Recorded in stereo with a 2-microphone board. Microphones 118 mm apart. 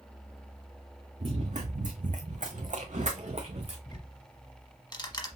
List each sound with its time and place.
1.2 s running footsteps: 60° right (ahead or behind), 1.3 m; by 3.8 s 50° right (ahead or behind), 1.3 m
3.9 s ticking: 35° left (ahead or behind), 0.9 m